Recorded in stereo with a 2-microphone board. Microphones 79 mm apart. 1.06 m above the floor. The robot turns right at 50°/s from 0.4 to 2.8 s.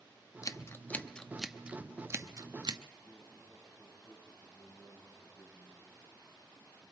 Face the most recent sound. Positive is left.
turn(degrees=-15)  # may be behind; listen again after turning